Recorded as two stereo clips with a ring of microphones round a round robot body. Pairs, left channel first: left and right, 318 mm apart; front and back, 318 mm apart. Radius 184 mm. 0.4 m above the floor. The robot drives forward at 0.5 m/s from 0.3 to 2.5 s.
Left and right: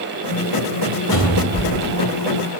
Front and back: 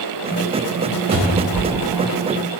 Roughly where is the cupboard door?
Behind left.